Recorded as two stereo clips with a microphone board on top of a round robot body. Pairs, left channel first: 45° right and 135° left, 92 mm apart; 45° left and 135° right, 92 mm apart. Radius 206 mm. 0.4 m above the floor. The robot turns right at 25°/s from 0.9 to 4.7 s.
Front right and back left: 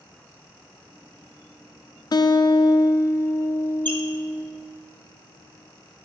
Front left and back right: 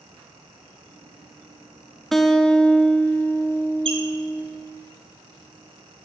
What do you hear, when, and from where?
2.1 s a guitar: 45° right, 0.5 m; by 4.5 s 15° left, 0.5 m
3.9 s a squeak: 115° right, 0.7 m